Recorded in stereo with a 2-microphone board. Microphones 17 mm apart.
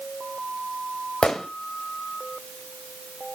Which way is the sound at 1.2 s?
85° left.